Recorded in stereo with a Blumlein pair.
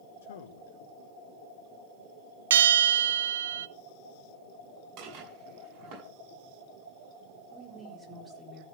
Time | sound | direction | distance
0.2 | a man speaking | 60° left | 1.2 m
2.5 | a bell | 60° right | 0.6 m
5.0 | dishes clattering | 35° right | 7.5 m
7.5 | a woman speaking | 10° right | 4.5 m